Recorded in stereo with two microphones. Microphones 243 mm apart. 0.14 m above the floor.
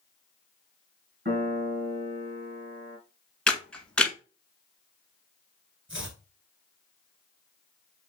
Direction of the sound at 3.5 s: 5° left (ahead or behind).